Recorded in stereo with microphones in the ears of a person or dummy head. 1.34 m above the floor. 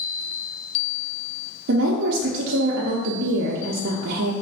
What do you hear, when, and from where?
1.7 s a woman speaking: 60° right (ahead or behind), 0.5 m